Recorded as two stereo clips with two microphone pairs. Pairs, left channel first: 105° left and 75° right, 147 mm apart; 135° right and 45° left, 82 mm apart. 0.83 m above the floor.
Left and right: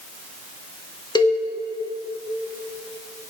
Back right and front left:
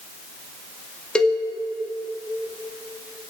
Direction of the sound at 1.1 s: 150° left.